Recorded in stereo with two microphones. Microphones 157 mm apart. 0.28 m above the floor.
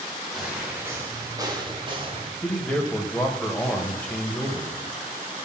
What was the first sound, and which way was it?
Footsteps, centre (ahead or behind).